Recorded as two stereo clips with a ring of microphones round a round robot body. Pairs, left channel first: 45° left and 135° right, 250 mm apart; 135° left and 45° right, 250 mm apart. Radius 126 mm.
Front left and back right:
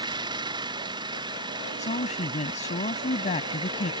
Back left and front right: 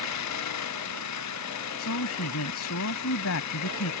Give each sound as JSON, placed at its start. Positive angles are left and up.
{"t": 0.0, "sound": "an engine running", "azimuth_deg": 150}
{"t": 1.8, "sound": "a woman speaking", "azimuth_deg": 105}